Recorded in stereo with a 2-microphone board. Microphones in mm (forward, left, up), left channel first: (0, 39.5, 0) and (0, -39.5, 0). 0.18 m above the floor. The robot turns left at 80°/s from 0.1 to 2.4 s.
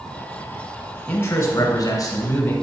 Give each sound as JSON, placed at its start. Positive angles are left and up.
{"t": 1.1, "sound": "a man speaking", "azimuth_deg": 160, "distance_m": 2.5}